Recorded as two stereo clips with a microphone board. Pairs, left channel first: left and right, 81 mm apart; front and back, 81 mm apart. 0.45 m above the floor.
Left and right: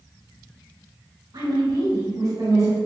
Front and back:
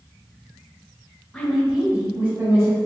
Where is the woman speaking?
80° right, 1.6 m; by 2.9 s 135° right, 1.9 m.